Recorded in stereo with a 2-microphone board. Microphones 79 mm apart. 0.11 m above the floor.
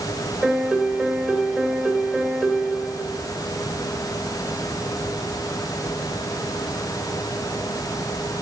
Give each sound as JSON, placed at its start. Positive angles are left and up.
{"t": 0.4, "sound": "a piano", "side_deg": -15, "distance_m": 2.0}